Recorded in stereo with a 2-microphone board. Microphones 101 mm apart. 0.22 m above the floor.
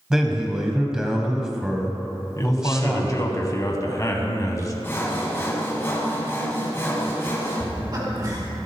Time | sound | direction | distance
0.1 | a man speaking | 5° right (ahead or behind) | 1.0 m
2.4 | a man speaking | 35° left (ahead or behind) | 1.2 m
4.8 | sawing | 25° left (ahead or behind) | 1.7 m
7.6 | laughter | 40° right (ahead or behind) | 2 m